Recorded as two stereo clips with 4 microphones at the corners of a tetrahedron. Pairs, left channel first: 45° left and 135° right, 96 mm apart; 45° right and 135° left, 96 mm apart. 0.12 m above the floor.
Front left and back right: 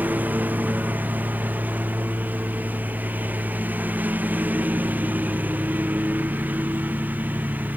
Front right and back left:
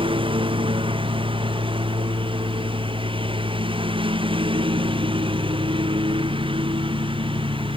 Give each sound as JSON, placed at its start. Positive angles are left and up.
{"t": 0.0, "sound": "a lawn mower", "azimuth_deg": 155}